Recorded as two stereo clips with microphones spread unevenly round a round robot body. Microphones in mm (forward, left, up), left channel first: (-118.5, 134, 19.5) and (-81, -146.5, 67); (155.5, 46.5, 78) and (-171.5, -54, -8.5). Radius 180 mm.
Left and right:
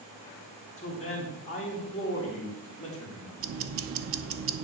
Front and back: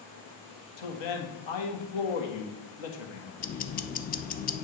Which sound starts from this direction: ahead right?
Ticking, at 3.4 s.